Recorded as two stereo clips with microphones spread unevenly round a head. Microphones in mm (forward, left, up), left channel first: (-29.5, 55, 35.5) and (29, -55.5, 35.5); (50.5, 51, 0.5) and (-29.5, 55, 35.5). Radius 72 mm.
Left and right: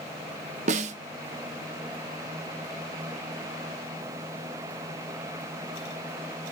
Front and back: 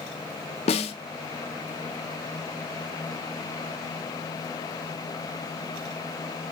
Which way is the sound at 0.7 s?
25° right.